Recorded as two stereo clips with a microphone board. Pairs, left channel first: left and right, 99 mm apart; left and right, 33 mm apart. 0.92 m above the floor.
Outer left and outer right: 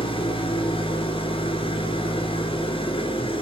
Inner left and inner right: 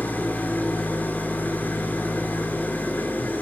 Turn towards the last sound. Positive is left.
turn(degrees=60)  # may be behind; listen again after turning